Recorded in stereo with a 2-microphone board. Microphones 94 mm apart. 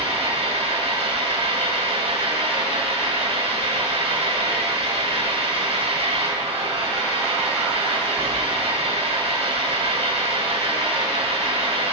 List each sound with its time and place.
0.0 s an engine running: 80° right, 4.5 m